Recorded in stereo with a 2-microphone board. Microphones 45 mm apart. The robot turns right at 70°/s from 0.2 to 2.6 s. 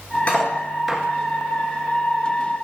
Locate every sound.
0.3 s cutlery clinking: 30° left (ahead or behind), 1.3 m; by 1.0 s 15° right (ahead or behind), 1.3 m